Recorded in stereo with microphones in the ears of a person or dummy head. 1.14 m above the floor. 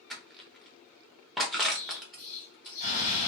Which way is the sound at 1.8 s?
45° left (ahead or behind).